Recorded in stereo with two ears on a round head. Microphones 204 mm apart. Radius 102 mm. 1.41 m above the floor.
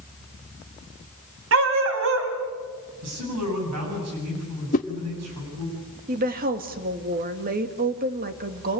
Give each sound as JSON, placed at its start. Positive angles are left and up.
{"t": 1.5, "sound": "a dog barking", "side_deg": -65, "distance_m": 3.0}
{"t": 3.0, "sound": "a man speaking", "side_deg": -85, "distance_m": 9.5}
{"t": 4.7, "sound": "a whoosh", "side_deg": 35, "distance_m": 1.3}
{"t": 6.1, "sound": "a woman speaking", "side_deg": -40, "distance_m": 2.0}